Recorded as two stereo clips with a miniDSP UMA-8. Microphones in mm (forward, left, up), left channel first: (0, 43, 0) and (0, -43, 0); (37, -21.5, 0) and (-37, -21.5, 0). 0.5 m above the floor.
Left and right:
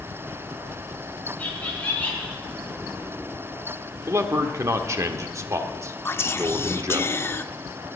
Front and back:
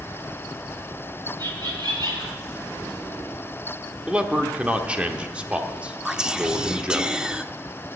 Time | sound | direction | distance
1.4 | laughter | 160° left | 5.5 m
4.1 | a man speaking | 115° right | 1.1 m
6.0 | whispering | 110° left | 0.7 m